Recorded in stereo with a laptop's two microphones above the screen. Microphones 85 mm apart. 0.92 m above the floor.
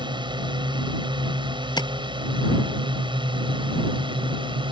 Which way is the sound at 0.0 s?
65° right (ahead or behind).